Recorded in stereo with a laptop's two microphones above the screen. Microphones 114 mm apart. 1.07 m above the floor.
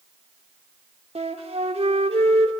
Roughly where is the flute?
Right.